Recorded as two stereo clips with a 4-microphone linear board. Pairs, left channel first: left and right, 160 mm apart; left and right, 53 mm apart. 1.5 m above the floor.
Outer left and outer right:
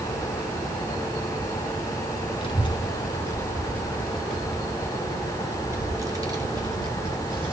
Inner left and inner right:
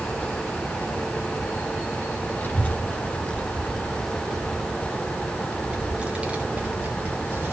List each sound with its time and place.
2.4 s a child speaking: 35° left (ahead or behind), 2.5 m; by 7.5 s 35° right (ahead or behind), 4.5 m